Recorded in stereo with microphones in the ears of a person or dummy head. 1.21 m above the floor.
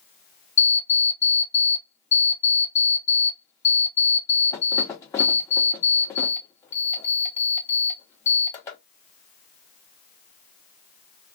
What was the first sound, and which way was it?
An alarm clock, 20° left (ahead or behind).